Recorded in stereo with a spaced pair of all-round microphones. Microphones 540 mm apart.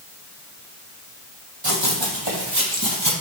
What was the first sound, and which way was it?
Running footsteps, 55° right (ahead or behind).